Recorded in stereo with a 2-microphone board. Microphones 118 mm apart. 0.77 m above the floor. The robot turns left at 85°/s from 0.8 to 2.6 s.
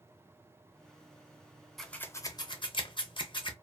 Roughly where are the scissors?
Centre.